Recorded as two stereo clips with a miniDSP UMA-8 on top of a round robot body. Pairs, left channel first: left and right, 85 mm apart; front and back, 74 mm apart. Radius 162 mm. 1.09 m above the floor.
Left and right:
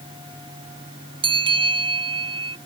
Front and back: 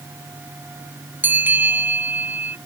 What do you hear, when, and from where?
1.2 s a bell: 115° right